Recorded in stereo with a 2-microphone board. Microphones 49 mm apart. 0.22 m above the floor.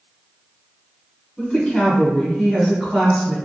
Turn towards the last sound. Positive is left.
turn(degrees=-5)  # may be behind; listen again after turning